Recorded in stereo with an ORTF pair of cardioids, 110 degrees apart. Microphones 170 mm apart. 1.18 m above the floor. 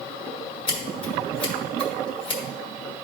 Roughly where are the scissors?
Ahead left.